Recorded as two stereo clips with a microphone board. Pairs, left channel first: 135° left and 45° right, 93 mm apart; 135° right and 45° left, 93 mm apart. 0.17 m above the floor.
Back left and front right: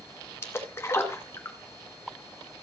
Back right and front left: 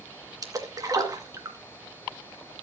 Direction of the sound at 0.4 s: 80° left.